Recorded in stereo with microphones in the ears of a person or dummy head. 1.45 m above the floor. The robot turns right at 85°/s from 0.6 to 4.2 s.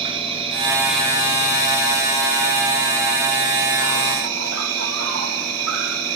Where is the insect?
30° right, 3 m; by 6.2 s 85° right, 3 m.